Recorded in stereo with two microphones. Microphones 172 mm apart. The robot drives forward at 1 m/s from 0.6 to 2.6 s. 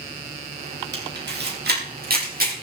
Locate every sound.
0.9 s a camera shutter: 80° right, 3 m; by 2.5 s 55° right (ahead or behind), 4 m